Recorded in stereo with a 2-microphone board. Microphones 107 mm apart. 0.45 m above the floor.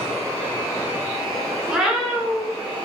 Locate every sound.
1.7 s a cat meowing: 5° right (ahead or behind), 1.2 m